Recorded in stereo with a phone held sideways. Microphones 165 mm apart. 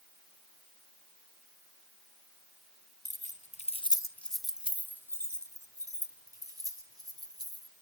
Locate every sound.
3.0 s keys jangling: 45° left (ahead or behind), 1.4 m; by 7.7 s 25° right (ahead or behind), 6 m